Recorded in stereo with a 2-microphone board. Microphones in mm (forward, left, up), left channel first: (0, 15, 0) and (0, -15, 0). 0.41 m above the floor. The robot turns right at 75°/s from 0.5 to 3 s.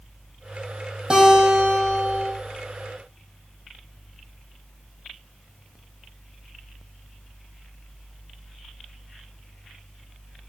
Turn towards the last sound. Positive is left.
turn(degrees=-20)